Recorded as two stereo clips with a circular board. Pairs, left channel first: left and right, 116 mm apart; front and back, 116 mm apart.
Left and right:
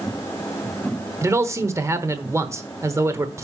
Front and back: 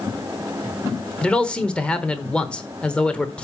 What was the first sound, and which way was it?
A man speaking, 70° right.